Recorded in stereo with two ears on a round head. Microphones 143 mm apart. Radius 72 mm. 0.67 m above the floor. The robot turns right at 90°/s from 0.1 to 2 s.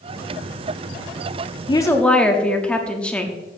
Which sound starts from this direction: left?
A woman speaking, at 1.7 s.